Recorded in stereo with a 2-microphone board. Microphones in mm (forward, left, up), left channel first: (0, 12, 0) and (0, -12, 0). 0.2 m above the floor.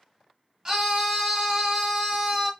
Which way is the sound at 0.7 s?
15° right (ahead or behind).